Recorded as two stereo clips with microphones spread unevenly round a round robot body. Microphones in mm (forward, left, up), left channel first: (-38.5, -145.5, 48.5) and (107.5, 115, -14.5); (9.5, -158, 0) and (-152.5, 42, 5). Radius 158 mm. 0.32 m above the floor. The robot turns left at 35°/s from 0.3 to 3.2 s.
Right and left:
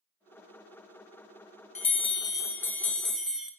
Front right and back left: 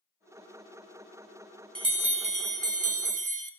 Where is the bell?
170° left, 0.8 m; by 3.5 s 120° left, 0.8 m.